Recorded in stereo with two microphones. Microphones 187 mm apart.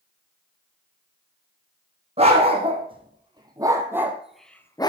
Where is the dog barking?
35° right (ahead or behind), 3.5 m; by 4.9 s 25° left (ahead or behind), 1.2 m.